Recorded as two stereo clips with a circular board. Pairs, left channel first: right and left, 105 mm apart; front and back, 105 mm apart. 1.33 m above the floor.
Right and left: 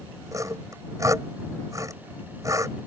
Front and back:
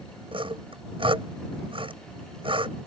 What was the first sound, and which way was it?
Sawing, 150° left.